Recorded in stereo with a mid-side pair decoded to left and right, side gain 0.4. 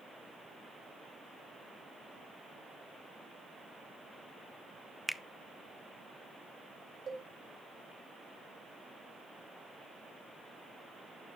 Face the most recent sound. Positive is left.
turn(degrees=-55)